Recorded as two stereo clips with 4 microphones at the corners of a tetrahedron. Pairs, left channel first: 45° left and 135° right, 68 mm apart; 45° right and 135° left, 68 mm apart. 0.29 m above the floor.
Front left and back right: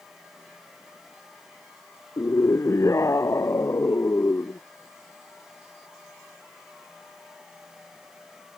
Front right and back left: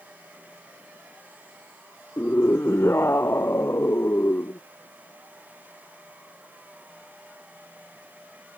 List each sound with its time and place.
2.2 s a scream: 10° left; by 4.6 s straight ahead